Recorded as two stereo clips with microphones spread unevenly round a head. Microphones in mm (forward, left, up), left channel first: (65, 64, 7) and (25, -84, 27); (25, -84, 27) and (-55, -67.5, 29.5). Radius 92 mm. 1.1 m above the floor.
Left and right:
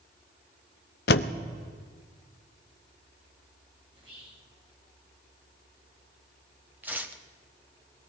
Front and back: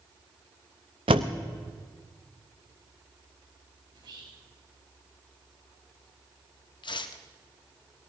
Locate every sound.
1.1 s a door slam: 115° left, 0.5 m
3.9 s whispering: 170° right, 6 m
6.8 s tearing paper: 30° right, 1.3 m